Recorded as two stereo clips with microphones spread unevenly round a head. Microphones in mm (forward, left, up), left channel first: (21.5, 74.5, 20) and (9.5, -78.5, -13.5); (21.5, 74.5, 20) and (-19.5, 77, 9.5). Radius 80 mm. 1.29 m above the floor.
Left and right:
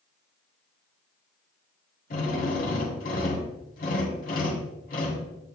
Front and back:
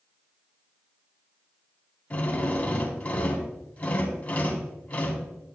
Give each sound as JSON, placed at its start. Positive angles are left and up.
{"t": 2.1, "sound": "a drill", "azimuth_deg": 50, "distance_m": 3.5}